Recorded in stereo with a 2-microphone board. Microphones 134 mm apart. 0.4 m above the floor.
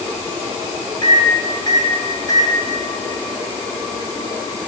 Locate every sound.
1.0 s a microwave: 35° left (ahead or behind), 2.5 m